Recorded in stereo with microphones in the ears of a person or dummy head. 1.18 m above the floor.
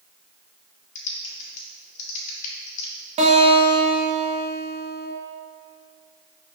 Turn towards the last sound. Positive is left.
turn(degrees=-25)  # may be behind; listen again after turning